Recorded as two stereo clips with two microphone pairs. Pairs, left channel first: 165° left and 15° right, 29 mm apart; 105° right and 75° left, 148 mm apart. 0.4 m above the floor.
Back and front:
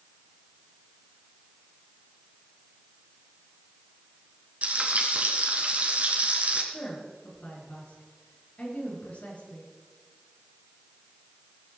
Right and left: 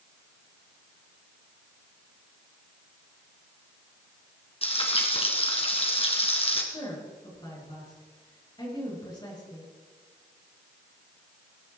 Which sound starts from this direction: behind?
A woman speaking, at 6.7 s.